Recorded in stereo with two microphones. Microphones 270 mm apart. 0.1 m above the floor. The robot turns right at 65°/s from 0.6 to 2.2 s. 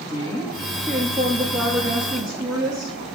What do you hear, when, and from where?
0.1 s a woman speaking: 165° left, 2.0 m; by 3.0 s 90° right, 2.0 m